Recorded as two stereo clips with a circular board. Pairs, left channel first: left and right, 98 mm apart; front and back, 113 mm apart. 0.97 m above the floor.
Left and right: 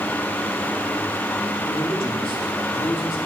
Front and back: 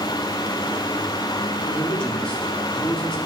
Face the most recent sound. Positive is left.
turn(degrees=80)